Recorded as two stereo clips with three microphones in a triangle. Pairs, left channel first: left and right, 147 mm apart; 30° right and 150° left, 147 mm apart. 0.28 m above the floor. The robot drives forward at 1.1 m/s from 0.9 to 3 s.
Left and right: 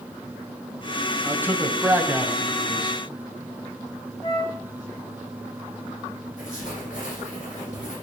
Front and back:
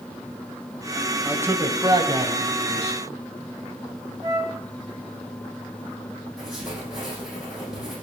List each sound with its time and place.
1.2 s a man speaking: 145° right, 1.3 m; by 3.0 s 170° right, 2.5 m
4.2 s a flute: 110° left, 1.9 m
6.4 s writing: 65° left, 8 m